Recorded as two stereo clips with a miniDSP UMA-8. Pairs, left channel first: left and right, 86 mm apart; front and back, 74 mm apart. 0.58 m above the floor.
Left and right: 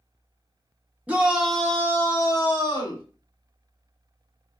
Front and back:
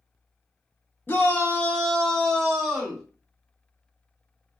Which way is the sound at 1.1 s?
35° right.